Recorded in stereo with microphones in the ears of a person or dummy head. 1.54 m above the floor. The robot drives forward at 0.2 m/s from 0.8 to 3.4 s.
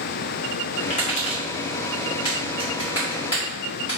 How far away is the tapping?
About 1.7 m.